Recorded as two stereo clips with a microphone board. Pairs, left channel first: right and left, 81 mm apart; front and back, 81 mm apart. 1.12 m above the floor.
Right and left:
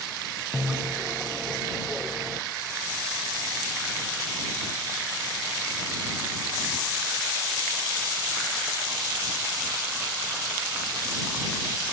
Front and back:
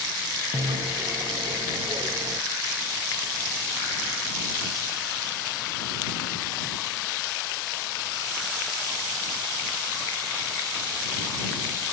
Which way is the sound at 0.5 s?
175° left.